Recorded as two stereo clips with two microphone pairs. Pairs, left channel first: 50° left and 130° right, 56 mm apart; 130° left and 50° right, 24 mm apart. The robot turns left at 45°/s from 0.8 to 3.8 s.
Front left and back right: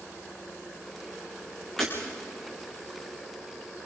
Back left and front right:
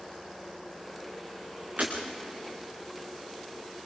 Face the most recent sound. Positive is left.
turn(degrees=-120)